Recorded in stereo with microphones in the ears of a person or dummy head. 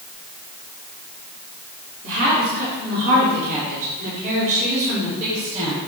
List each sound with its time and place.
2.0 s a woman speaking: 65° right (ahead or behind), 2.5 m; by 5.8 s 40° right (ahead or behind), 4 m